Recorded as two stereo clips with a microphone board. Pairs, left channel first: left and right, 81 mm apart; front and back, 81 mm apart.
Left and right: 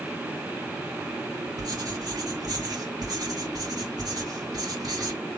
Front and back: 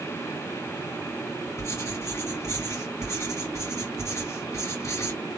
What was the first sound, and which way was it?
Writing, 50° right.